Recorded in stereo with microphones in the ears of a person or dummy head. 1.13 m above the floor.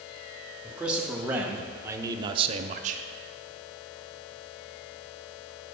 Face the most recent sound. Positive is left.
turn(degrees=-35)  # may be behind; listen again after turning